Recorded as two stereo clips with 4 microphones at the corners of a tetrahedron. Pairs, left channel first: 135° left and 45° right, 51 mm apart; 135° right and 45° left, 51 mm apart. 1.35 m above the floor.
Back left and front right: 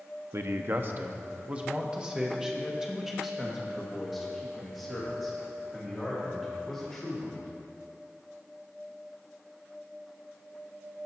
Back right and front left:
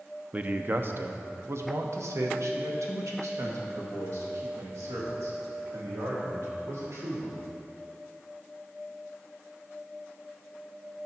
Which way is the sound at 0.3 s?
20° right.